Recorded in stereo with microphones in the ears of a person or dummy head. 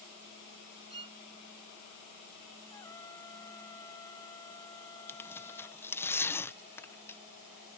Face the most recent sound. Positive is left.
turn(degrees=15)  # may be behind; listen again after turning